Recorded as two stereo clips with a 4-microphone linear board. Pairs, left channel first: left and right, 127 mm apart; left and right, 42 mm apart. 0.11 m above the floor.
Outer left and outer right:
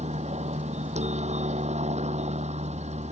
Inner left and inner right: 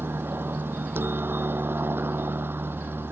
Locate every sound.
0.0 s a helicopter: 65° right (ahead or behind)